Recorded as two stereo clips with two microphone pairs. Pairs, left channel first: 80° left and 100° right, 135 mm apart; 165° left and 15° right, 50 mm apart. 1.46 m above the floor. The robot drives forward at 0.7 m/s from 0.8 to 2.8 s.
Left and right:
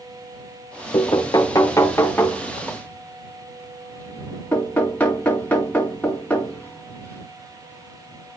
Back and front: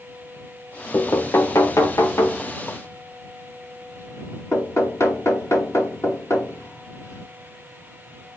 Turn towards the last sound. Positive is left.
turn(degrees=160)